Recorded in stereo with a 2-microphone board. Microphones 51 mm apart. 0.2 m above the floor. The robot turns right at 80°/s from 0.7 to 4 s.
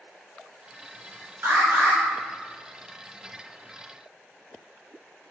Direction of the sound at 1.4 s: 70° right.